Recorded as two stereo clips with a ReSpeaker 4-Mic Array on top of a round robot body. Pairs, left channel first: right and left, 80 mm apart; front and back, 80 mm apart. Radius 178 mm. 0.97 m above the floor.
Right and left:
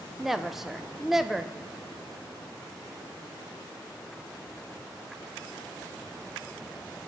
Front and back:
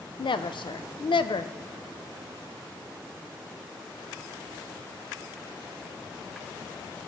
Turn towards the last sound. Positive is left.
turn(degrees=5)